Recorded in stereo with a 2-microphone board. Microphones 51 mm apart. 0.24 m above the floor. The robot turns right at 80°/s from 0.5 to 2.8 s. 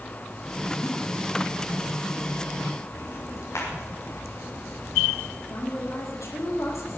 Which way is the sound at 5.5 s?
80° left.